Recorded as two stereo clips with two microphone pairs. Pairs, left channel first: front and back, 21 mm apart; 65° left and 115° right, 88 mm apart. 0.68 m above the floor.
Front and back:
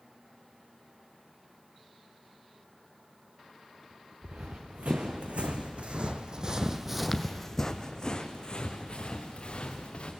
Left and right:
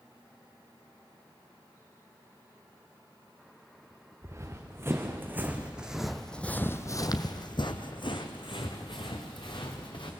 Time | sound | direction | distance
4.2 | running footsteps | 170° right | 2.5 m